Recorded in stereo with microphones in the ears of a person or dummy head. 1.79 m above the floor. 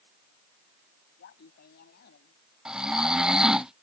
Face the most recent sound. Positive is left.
turn(degrees=0)  # may be behind; listen again after turning